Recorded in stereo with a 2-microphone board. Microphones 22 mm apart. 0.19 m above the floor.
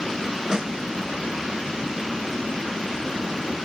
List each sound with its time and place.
0.5 s a snare drum: 25° right (ahead or behind), 1.3 m